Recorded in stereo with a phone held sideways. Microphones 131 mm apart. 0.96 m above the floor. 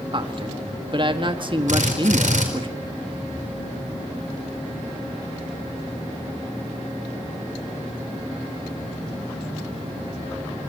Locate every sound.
0.1 s a man speaking: 40° right (ahead or behind), 1.6 m
1.7 s a drill: 75° right (ahead or behind), 4.5 m